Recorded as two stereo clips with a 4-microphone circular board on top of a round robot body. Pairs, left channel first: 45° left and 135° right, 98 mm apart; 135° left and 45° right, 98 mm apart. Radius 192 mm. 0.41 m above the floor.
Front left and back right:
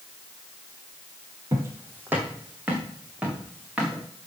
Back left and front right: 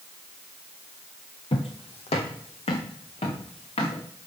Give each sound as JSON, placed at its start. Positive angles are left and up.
{"t": 1.5, "sound": "footsteps", "azimuth_deg": 165, "distance_m": 0.6}